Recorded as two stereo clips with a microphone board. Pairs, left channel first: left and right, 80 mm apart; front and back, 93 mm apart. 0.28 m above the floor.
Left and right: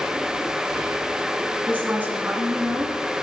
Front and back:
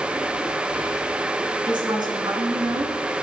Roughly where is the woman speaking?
Behind.